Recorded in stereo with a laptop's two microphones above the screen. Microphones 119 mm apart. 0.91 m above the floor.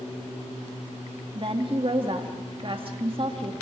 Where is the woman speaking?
45° right (ahead or behind), 1.9 m.